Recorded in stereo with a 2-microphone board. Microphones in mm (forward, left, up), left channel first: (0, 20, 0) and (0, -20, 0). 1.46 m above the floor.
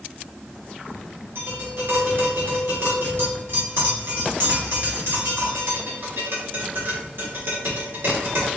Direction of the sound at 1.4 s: 65° right (ahead or behind).